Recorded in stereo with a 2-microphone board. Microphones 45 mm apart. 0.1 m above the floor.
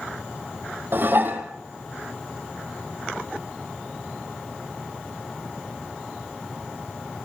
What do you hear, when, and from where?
0.9 s dishes clattering: 45° right (ahead or behind), 2.5 m